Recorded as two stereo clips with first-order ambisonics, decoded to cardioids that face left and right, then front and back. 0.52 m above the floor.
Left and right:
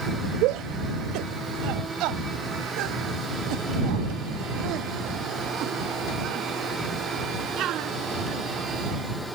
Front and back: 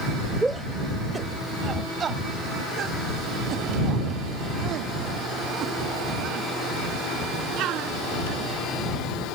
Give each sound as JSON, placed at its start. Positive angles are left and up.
{"t": 0.4, "sound": "a shout", "azimuth_deg": -95}